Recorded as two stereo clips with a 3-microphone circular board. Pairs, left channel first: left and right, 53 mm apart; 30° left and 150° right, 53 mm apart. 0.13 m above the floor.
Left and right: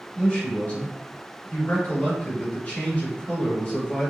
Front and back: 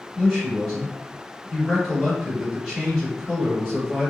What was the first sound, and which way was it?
A man speaking, 110° left.